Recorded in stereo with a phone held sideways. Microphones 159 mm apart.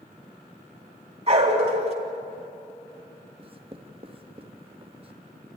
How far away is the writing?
About 1.2 m.